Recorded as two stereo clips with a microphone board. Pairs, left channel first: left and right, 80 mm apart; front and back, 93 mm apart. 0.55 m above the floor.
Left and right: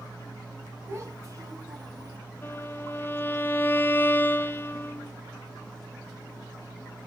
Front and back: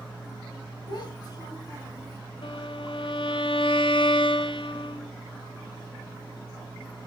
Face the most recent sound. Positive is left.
turn(degrees=25)